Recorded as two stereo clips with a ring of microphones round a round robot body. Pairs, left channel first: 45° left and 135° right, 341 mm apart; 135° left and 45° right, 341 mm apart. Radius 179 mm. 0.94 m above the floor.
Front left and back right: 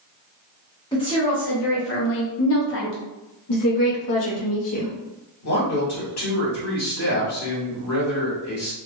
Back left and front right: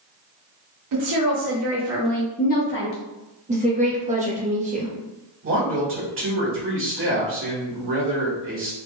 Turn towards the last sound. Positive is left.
turn(degrees=5)